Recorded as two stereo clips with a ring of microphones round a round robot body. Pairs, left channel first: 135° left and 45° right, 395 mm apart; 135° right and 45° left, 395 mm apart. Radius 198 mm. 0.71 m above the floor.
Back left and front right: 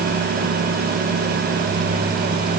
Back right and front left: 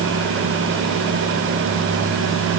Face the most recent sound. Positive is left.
No sound to turn to.